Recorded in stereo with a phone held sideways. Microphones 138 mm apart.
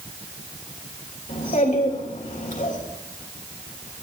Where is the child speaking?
65° left (ahead or behind), 3.5 m.